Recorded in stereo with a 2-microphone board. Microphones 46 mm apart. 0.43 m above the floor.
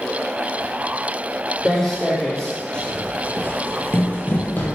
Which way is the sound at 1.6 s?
5° left (ahead or behind).